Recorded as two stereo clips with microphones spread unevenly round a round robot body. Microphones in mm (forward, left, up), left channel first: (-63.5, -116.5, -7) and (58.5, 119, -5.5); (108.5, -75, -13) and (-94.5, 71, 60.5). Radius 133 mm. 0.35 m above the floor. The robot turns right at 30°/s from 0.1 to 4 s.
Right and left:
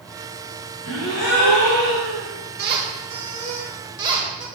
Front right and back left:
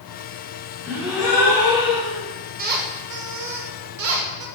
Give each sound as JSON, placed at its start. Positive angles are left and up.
{"t": 0.8, "sound": "a gasp", "azimuth_deg": -135, "distance_m": 2.0}
{"t": 2.6, "sound": "a squeak", "azimuth_deg": 85, "distance_m": 1.0}